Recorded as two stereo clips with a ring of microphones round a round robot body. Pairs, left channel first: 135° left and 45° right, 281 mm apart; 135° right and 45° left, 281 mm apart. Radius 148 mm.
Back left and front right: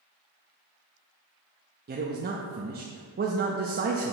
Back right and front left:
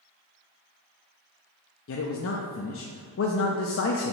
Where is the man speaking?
100° right, 0.6 m.